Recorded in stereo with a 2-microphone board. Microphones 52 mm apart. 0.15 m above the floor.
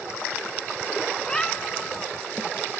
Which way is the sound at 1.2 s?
15° left (ahead or behind).